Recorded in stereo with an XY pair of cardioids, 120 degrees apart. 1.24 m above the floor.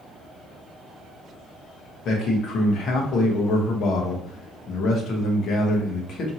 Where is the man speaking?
65° left, 0.9 m.